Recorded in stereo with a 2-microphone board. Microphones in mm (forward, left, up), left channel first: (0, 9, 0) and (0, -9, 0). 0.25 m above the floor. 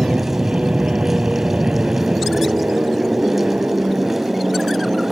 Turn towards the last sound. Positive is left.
turn(degrees=-75)  # may be behind; listen again after turning